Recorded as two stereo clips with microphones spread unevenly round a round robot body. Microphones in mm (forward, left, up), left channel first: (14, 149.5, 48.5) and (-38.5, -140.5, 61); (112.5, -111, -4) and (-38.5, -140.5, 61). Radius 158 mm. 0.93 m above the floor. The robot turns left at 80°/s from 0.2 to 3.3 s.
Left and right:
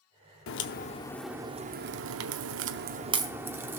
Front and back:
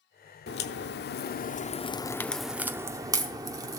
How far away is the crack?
About 0.6 m.